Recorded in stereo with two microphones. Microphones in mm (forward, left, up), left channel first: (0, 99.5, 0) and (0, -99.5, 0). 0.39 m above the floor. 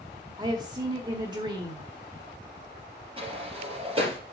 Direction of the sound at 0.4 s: 25° right (ahead or behind).